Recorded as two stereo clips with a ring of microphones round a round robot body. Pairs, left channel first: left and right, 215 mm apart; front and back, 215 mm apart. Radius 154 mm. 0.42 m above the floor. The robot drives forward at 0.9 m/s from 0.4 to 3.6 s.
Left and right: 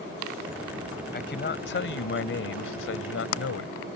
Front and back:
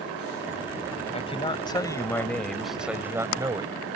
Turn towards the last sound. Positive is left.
turn(degrees=110)